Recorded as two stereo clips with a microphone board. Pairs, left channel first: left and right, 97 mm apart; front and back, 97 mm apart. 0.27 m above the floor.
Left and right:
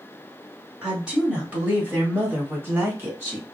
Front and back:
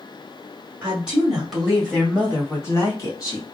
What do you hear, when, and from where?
0.8 s a woman speaking: 160° right, 1.4 m; by 3.4 s 30° right, 1.9 m